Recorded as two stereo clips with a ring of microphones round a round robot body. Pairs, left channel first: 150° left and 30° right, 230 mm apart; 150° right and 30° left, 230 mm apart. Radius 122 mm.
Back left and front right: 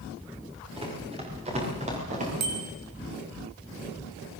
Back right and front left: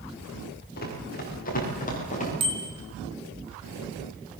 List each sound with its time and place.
0.8 s running footsteps: 100° right, 10 m; by 2.3 s 90° right, 10 m
2.4 s a bicycle bell: 40° right, 4 m